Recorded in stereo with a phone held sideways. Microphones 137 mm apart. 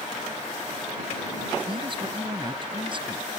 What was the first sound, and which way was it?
A man speaking, 40° right (ahead or behind).